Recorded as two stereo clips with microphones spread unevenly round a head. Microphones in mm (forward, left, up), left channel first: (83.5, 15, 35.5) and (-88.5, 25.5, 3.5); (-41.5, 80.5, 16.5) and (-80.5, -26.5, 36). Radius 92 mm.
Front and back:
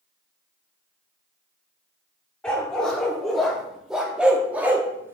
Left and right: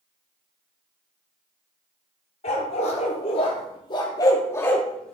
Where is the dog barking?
70° left, 1.7 m; by 5.2 s 100° right, 1.1 m.